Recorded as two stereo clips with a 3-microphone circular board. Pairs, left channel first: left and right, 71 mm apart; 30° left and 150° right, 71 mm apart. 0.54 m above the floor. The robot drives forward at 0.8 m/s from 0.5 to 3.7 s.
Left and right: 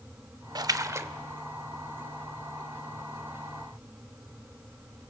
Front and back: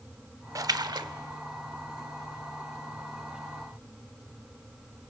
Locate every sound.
0.6 s a splash: 110° right, 0.5 m; by 1.1 s 140° right, 0.8 m